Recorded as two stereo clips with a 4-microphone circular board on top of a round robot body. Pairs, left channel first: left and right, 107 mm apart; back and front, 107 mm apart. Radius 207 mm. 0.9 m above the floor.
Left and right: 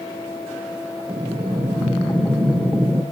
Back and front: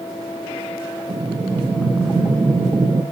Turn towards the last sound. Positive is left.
turn(degrees=-20)